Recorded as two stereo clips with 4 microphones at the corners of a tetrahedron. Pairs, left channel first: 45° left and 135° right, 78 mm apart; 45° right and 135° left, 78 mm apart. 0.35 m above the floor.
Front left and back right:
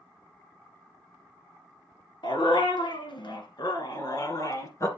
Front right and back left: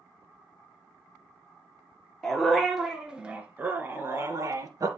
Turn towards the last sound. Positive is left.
turn(degrees=95)